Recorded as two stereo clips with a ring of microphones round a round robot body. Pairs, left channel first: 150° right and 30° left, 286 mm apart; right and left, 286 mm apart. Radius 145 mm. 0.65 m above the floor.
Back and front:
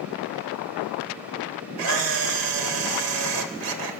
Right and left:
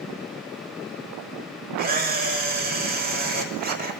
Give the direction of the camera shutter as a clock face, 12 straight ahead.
11 o'clock.